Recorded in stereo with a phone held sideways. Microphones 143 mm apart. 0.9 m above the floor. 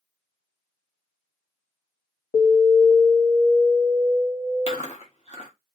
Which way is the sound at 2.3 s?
25° left (ahead or behind).